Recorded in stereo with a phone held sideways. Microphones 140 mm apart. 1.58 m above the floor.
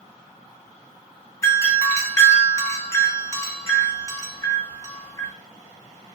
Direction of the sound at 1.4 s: 20° left (ahead or behind).